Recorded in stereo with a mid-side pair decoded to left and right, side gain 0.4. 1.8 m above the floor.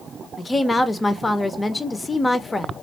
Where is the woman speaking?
25° left, 0.8 m.